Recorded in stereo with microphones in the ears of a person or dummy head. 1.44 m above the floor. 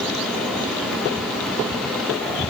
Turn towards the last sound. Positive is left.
No sound to turn to.